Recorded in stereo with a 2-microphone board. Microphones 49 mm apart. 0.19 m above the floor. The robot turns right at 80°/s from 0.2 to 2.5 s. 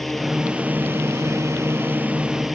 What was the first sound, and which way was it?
A drone, 5° left (ahead or behind).